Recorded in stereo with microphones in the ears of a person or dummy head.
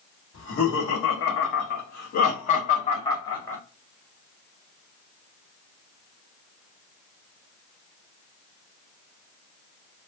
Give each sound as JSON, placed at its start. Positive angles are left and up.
{"t": 0.3, "sound": "laughter", "side_deg": 85, "distance_m": 1.6}